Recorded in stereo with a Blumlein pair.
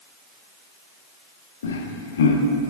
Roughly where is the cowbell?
No cowbell in this recording.